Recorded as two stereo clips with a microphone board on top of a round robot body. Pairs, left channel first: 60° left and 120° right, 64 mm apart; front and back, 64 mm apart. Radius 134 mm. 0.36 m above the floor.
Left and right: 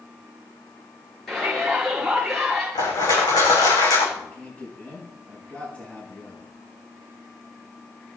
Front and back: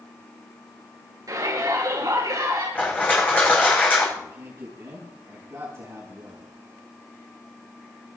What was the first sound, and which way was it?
A shout, 145° left.